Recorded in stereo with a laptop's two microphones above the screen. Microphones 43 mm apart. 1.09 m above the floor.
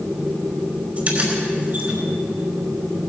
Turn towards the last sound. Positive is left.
turn(degrees=-35)  # may be behind; listen again after turning